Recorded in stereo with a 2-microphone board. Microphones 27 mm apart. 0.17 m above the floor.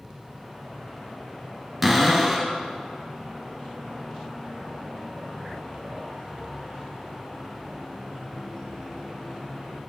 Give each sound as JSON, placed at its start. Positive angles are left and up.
{"t": 1.8, "sound": "a cupboard door", "side_deg": -5, "distance_m": 1.2}